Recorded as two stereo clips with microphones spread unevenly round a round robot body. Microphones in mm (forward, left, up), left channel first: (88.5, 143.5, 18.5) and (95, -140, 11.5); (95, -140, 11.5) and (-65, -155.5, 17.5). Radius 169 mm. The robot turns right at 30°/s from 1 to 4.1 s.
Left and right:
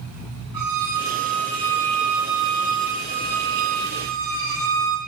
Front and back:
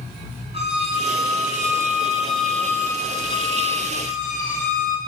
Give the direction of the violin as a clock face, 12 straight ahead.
4 o'clock.